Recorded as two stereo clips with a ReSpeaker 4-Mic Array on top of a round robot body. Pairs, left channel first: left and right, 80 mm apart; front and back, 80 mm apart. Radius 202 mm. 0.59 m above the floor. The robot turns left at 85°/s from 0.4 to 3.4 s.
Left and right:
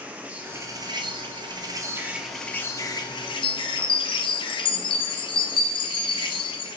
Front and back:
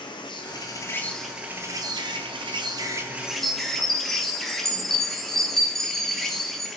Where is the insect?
15° right, 1.0 m; by 6.8 s 90° left, 1.0 m.